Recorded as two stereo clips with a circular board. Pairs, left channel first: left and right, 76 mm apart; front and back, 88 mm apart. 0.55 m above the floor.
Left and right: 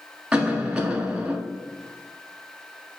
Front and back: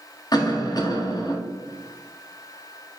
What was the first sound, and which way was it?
A cough, 10° right.